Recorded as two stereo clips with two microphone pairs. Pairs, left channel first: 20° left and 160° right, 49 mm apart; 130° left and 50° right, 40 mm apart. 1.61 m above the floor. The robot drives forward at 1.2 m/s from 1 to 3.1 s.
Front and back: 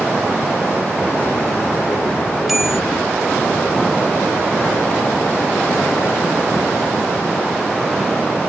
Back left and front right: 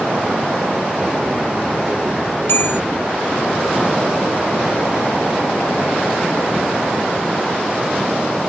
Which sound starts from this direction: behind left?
A bell, at 2.5 s.